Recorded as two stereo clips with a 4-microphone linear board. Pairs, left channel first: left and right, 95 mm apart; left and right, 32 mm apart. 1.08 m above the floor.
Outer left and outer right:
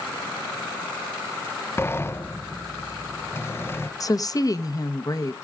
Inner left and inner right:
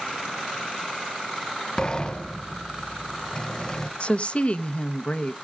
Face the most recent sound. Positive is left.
turn(degrees=40)  # may be behind; listen again after turning